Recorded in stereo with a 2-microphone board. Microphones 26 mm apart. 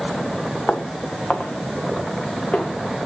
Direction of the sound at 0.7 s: 55° left (ahead or behind).